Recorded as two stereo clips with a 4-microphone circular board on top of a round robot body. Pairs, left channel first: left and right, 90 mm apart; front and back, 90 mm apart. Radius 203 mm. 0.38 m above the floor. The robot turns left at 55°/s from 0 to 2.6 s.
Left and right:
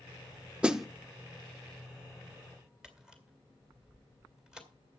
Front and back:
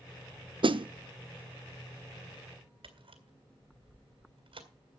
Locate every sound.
0.6 s a snare drum: 165° right, 0.9 m; by 0.9 s straight behind, 0.9 m
2.8 s a camera shutter: 170° right, 3 m